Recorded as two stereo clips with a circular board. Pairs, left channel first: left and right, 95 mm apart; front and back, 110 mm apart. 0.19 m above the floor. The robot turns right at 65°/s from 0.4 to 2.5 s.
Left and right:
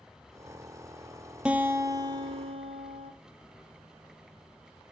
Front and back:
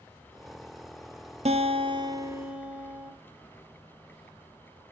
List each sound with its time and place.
1.4 s a guitar: 170° right, 0.7 m; by 3.1 s 100° right, 0.7 m